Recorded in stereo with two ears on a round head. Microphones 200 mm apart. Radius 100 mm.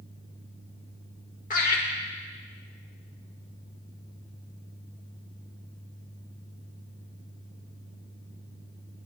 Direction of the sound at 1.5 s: 35° left (ahead or behind).